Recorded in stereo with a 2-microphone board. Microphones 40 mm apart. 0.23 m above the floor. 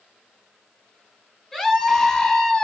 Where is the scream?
Centre (ahead or behind), 2.5 m; by 2.6 s 10° left (ahead or behind), 1.8 m.